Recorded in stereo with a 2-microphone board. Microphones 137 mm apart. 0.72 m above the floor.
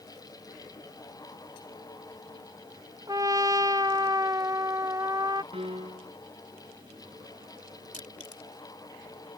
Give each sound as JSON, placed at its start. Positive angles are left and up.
{"t": 3.1, "sound": "a trumpet", "side_deg": -25}
{"t": 5.5, "sound": "a piano", "side_deg": -45}
{"t": 7.9, "sound": "crushing", "side_deg": 70}